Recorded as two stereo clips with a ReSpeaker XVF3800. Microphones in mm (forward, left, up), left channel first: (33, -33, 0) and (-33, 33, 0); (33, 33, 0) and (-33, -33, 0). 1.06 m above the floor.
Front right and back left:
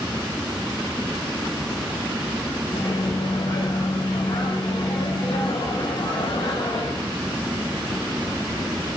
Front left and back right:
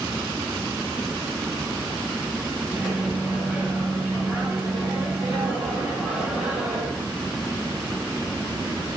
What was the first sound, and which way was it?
A microwave, 60° right.